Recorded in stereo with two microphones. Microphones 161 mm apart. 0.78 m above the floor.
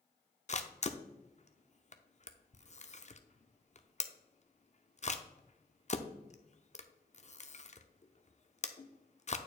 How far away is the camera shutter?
About 0.5 m.